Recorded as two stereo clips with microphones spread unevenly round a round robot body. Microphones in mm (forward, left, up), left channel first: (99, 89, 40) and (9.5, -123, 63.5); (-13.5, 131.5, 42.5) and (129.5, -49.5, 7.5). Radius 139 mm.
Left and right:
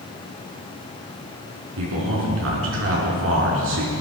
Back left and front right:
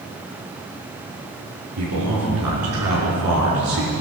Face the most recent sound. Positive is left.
turn(degrees=-85)